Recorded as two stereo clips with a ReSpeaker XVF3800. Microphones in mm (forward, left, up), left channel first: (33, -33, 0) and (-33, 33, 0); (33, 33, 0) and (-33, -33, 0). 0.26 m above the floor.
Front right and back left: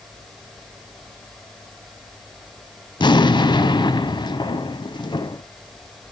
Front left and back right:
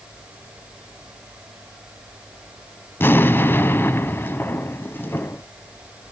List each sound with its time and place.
3.0 s an explosion: 20° right, 0.6 m